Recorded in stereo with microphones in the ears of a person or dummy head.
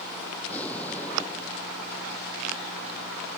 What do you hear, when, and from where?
0.4 s an explosion: 10° left (ahead or behind)